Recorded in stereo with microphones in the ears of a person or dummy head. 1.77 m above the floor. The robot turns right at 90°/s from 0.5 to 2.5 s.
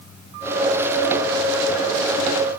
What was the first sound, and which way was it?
Only background noise.